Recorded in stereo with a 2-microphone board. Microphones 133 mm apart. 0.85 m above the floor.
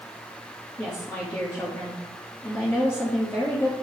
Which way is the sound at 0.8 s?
15° left (ahead or behind).